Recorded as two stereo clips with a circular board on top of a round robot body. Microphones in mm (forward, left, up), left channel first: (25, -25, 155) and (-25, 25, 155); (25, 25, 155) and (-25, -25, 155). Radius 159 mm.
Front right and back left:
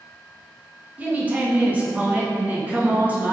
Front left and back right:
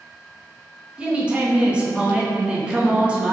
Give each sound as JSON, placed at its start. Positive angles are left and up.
{"t": 1.0, "sound": "a woman speaking", "azimuth_deg": 170, "distance_m": 0.9}